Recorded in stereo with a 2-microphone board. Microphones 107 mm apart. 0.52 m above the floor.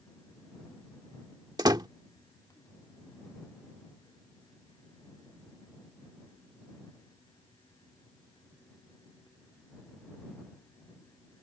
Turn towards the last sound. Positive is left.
turn(degrees=-40)  # may be behind; listen again after turning